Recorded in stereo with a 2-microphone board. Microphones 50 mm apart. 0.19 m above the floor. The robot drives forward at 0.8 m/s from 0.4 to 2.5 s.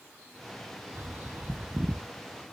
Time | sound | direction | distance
0.9 | a bird | 50° right (ahead or behind) | 0.9 m